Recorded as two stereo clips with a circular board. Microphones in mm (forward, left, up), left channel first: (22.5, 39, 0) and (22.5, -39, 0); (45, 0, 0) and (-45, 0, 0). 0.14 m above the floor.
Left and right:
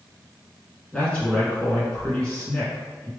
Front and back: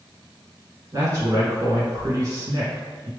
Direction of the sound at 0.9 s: 160° left.